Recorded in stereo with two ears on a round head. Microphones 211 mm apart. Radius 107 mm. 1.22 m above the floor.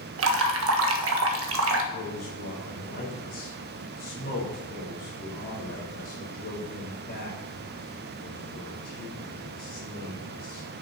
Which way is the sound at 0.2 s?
65° right (ahead or behind).